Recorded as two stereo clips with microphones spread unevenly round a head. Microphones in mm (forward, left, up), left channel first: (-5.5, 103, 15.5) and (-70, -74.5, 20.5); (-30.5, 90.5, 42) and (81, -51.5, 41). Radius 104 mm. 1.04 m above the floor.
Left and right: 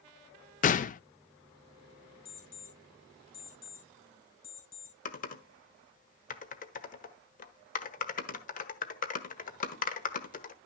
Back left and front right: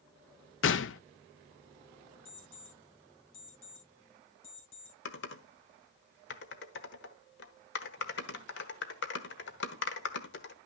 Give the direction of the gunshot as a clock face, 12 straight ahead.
8 o'clock.